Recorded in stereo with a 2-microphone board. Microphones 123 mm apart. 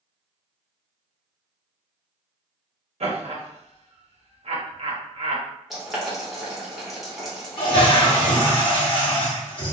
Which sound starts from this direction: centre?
Boiling, at 5.7 s.